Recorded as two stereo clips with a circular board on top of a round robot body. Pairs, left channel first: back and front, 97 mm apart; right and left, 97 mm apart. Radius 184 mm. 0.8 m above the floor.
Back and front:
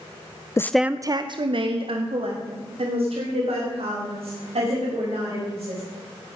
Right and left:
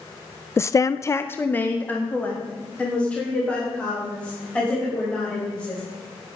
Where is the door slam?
No door slam in this recording.